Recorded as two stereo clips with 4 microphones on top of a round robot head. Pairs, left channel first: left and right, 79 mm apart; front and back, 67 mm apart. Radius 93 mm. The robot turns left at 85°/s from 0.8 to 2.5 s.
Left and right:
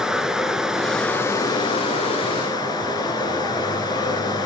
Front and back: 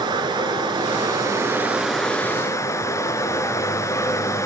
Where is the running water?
175° right, 2 m; by 4.5 s 40° left, 2 m.